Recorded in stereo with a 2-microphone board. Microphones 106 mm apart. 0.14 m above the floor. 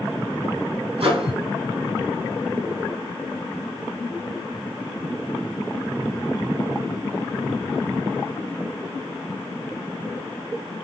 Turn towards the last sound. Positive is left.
turn(degrees=-60)  # may be behind; listen again after turning